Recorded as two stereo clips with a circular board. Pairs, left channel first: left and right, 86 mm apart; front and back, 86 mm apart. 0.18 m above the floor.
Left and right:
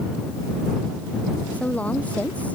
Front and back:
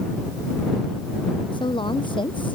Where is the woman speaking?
15° left.